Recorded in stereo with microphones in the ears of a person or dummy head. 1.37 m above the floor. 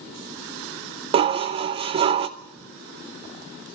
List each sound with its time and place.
1.1 s dishes clattering: 30° right (ahead or behind), 0.5 m